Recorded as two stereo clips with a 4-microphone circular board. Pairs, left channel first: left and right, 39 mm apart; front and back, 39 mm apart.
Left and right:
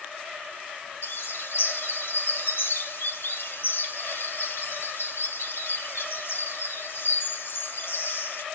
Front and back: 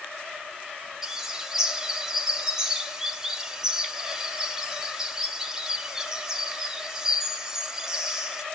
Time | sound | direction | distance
1.0 | a bird | 105° left | 1.3 m